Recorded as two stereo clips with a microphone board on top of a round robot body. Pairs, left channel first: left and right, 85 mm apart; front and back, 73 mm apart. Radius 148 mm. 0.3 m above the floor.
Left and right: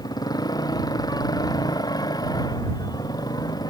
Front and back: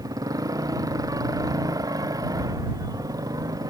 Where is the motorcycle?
135° left.